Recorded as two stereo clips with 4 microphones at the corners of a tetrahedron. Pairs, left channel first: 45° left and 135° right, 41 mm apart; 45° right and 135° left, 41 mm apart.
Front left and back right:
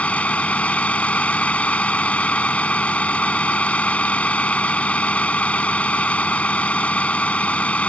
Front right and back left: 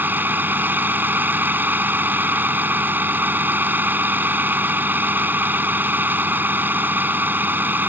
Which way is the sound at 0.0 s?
100° left.